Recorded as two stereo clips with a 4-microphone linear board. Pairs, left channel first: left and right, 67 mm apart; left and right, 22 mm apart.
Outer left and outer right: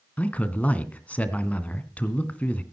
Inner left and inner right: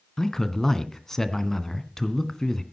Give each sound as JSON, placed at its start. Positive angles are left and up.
{"t": 0.2, "sound": "a man speaking", "side_deg": 20, "distance_m": 1.9}